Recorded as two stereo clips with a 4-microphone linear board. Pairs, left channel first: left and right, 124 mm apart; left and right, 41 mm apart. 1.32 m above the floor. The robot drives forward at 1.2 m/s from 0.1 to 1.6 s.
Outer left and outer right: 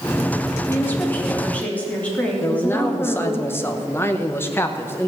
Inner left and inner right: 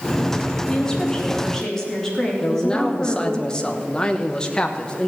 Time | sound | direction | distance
0.7 | a woman speaking | 20° left (ahead or behind) | 2 m
2.4 | a man speaking | 20° left (ahead or behind) | 1.0 m